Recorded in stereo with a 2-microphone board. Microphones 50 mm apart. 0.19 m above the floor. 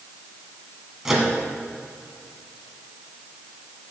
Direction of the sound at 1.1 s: 5° right (ahead or behind).